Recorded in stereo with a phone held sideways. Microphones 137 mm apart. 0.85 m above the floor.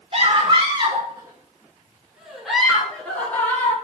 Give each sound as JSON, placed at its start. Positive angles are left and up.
{"t": 0.1, "sound": "a scream", "side_deg": -45, "distance_m": 3.5}